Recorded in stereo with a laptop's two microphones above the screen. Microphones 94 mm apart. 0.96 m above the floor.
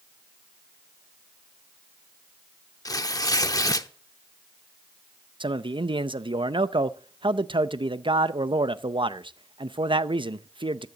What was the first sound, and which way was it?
Tearing paper, 40° left (ahead or behind).